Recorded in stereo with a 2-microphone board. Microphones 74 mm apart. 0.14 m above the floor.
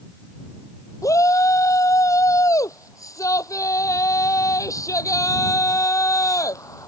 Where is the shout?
45° left (ahead or behind).